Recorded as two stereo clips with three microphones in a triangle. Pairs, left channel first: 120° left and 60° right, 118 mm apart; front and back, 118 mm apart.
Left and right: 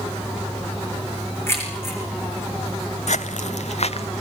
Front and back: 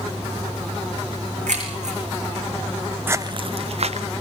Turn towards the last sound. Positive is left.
turn(degrees=155)